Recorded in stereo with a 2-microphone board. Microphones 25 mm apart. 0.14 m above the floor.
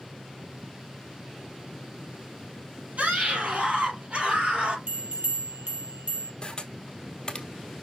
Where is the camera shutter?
30° left (ahead or behind), 1.3 m.